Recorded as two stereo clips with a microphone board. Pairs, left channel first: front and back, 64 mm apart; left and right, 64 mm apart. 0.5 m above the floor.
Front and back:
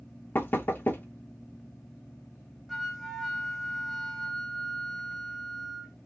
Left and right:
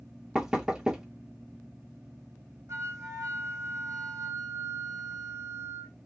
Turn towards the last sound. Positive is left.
turn(degrees=-85)